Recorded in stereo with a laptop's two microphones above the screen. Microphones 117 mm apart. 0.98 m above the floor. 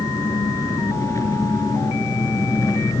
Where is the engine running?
25° left (ahead or behind), 4 m.